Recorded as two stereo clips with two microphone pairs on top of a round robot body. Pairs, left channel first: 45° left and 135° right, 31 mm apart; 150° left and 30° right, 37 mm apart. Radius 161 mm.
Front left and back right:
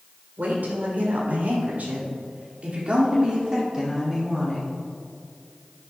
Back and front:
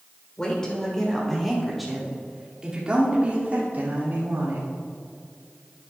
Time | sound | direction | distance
0.4 | a woman speaking | 145° right | 3.5 m